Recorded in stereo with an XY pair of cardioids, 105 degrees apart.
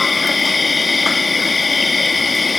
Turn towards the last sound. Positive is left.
turn(degrees=25)